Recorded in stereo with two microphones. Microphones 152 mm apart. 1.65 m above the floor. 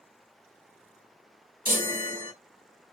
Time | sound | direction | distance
1.6 | a chime | 70° right (ahead or behind) | 0.9 m